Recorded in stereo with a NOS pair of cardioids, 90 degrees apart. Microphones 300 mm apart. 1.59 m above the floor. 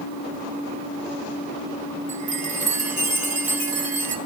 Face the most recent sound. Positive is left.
turn(degrees=-25)